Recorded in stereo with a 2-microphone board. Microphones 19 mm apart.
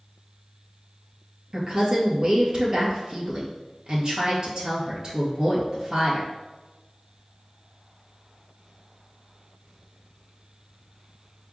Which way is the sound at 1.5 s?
45° right (ahead or behind).